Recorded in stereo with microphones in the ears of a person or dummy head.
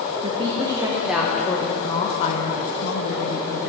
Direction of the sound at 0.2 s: 30° right (ahead or behind).